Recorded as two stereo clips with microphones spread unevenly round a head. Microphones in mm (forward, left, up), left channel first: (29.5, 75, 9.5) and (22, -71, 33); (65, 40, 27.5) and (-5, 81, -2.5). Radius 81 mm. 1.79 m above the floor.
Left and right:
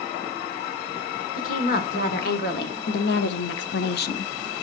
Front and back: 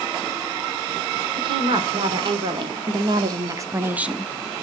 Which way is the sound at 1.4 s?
130° left.